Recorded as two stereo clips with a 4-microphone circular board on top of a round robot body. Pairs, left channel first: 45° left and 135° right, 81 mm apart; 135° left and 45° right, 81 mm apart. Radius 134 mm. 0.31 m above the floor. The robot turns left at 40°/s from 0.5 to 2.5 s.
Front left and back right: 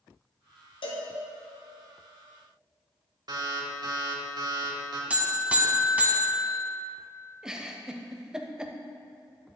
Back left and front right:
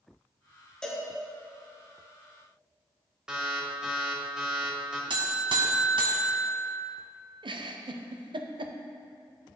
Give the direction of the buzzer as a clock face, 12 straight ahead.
2 o'clock.